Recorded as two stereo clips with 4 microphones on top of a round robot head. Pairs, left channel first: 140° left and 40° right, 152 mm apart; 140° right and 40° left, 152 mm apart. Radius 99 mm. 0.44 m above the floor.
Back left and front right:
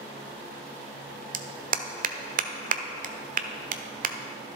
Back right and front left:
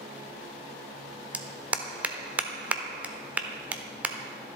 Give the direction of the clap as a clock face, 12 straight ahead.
1 o'clock.